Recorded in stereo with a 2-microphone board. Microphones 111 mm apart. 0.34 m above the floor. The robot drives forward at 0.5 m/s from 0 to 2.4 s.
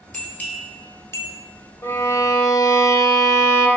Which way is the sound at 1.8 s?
25° left (ahead or behind).